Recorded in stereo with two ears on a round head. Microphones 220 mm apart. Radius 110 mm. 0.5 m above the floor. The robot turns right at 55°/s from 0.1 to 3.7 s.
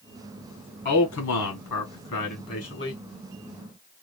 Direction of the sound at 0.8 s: 45° left.